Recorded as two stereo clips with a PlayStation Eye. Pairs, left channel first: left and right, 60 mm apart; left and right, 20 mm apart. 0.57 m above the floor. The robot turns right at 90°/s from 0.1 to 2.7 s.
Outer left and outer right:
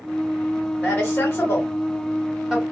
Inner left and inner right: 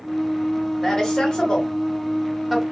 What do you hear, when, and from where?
0.8 s a woman speaking: 30° left (ahead or behind), 1.6 m; by 2.6 s 20° right (ahead or behind), 1.6 m